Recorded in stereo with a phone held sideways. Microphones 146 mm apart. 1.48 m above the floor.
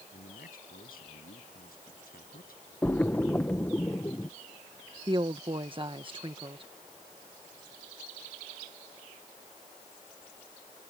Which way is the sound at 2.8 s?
15° left (ahead or behind).